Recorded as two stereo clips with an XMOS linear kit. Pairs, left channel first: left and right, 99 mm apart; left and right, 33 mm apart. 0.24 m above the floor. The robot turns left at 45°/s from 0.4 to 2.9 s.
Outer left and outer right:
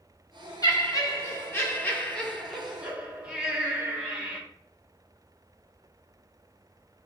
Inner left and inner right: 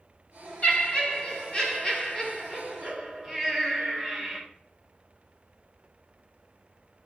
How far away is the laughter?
About 1.4 m.